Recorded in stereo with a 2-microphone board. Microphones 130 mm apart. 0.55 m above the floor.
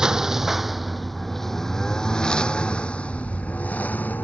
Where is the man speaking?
No man speaking in this recording.